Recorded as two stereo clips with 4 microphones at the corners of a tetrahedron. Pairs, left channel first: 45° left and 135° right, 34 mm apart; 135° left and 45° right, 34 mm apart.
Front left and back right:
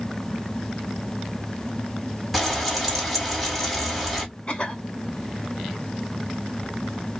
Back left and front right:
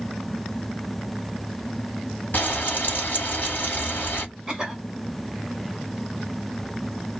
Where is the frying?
130° left, 1.5 m.